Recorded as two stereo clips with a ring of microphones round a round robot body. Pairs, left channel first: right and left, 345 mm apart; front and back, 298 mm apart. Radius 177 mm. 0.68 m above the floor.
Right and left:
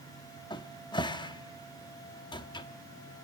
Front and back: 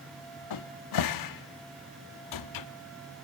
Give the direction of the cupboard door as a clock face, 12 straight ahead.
12 o'clock.